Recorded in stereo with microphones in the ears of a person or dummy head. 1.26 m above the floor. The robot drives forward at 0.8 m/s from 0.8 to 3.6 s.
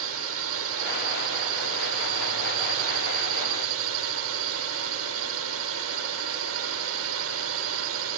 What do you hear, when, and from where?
0.0 s a drone: 75° right (ahead or behind); by 8.2 s 70° right (ahead or behind)